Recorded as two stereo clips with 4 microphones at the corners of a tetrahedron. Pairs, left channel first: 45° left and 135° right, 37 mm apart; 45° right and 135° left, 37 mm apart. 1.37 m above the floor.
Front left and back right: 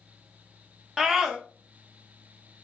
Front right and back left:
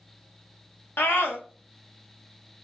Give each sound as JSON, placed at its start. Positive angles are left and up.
{"t": 1.0, "sound": "a scream", "azimuth_deg": -50, "distance_m": 1.8}